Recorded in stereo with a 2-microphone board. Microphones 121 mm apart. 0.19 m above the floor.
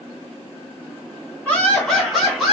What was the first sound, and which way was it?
Laughter, 10° left (ahead or behind).